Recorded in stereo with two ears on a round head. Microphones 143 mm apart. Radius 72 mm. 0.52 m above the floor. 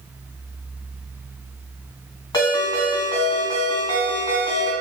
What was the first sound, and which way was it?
A ringtone, 20° left (ahead or behind).